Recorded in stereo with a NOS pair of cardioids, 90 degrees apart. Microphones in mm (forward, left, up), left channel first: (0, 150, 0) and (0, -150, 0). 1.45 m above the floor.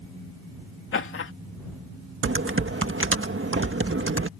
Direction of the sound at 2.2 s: 45° right.